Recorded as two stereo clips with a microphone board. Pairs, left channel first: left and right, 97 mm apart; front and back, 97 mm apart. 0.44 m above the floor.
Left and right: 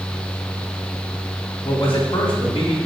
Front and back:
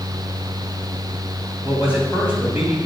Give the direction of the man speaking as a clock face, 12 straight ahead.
9 o'clock.